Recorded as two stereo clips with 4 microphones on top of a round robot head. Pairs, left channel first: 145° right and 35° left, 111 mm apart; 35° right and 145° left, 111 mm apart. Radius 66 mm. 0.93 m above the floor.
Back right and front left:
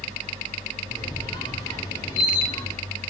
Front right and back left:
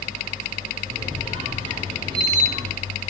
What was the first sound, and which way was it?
A squeak, 175° left.